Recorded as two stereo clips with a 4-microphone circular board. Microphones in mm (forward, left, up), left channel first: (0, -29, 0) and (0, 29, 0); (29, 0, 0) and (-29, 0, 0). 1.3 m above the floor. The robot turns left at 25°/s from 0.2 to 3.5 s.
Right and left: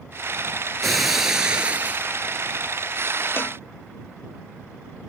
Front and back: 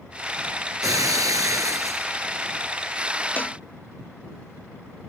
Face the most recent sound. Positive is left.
turn(degrees=-55)